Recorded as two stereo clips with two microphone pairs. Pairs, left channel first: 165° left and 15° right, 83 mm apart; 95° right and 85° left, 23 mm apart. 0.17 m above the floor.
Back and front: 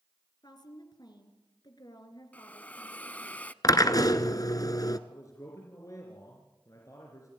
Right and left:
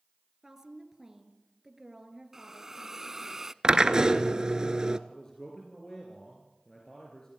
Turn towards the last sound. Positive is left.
turn(degrees=-155)